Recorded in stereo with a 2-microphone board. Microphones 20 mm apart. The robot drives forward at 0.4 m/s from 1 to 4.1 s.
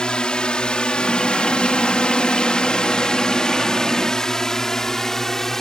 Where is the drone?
55° left (ahead or behind); by 5.6 s 20° left (ahead or behind).